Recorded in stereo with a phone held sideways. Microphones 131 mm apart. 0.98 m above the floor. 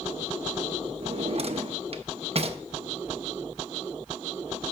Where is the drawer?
50° right (ahead or behind), 0.5 m.